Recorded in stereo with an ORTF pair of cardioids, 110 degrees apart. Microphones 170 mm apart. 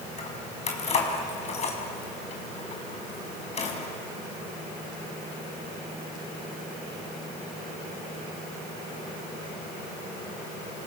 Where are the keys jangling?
40° left, 5.5 m.